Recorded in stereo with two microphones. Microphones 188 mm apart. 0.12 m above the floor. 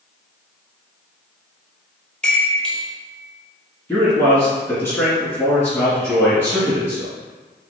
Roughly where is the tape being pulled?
I don't hear tape being pulled.